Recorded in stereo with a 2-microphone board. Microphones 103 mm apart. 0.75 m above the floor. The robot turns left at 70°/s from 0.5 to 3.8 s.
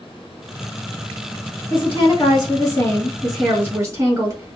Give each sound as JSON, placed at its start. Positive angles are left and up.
{"t": 1.7, "sound": "a woman speaking", "azimuth_deg": 110, "distance_m": 1.5}